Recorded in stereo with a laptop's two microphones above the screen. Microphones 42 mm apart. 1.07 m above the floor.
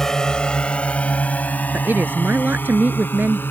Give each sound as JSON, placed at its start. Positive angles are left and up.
{"t": 0.0, "sound": "a drone", "side_deg": 10}
{"t": 1.7, "sound": "a woman speaking", "side_deg": -55}